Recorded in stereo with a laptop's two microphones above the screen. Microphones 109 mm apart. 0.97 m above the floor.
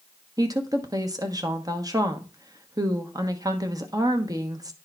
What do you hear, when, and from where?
0.4 s a woman speaking: 35° right (ahead or behind), 1.1 m